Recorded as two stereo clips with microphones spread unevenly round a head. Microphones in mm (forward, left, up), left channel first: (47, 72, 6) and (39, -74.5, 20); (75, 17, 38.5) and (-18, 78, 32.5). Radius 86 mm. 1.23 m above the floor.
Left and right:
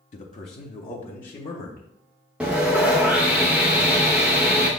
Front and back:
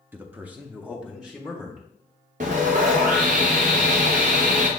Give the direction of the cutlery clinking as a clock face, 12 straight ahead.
I don't hear cutlery clinking.